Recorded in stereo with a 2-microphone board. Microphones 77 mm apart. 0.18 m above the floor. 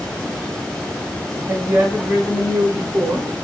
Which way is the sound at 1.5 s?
20° right (ahead or behind).